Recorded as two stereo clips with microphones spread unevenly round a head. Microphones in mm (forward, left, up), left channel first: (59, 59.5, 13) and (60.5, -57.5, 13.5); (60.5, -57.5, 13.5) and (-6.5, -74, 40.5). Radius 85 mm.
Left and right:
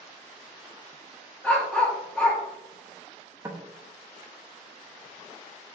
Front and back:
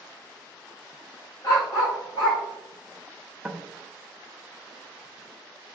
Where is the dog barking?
20° left, 1.2 m.